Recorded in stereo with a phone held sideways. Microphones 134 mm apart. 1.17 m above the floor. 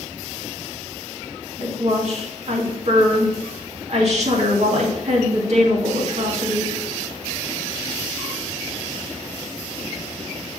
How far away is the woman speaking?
About 2 m.